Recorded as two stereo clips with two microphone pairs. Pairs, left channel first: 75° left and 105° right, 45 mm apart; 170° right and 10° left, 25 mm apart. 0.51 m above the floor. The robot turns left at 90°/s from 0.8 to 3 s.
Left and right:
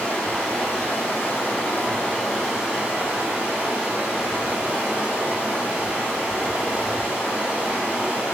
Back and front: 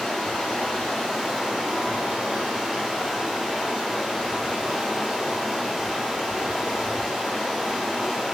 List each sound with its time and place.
0.0 s running water: 130° left, 1.5 m; by 8.3 s 65° right, 1.5 m